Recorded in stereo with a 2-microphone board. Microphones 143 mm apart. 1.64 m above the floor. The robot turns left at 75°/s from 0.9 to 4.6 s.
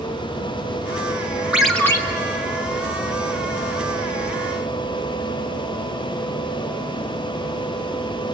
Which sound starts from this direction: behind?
A ringtone, at 1.5 s.